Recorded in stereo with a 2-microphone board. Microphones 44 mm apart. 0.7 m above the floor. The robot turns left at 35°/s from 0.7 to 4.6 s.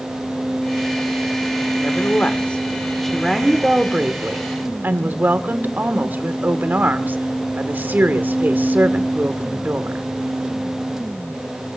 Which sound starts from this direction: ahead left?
A woman speaking, at 1.8 s.